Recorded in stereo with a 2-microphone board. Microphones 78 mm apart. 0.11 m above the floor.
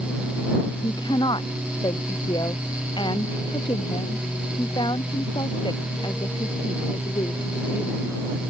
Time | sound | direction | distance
0.8 | a woman speaking | 75° left (ahead or behind) | ?